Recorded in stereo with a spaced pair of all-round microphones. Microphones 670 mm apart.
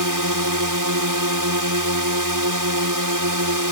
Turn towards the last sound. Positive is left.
turn(degrees=-30)  # may be behind; listen again after turning